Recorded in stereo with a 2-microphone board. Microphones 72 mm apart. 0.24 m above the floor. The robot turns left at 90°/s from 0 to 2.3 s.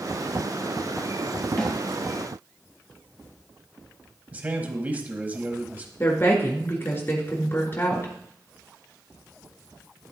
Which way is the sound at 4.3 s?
25° right (ahead or behind).